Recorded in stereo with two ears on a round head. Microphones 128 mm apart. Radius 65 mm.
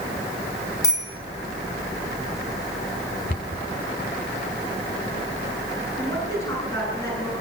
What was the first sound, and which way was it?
A bicycle bell, 25° left (ahead or behind).